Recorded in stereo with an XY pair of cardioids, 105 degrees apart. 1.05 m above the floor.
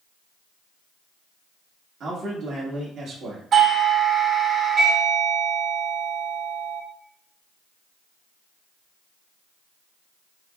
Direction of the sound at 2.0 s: 60° right.